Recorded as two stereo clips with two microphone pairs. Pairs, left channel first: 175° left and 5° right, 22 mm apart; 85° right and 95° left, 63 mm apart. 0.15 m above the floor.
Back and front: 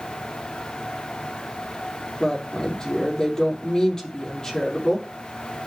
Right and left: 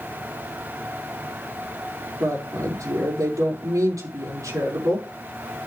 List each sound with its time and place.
2.2 s a woman speaking: 115° left, 5.5 m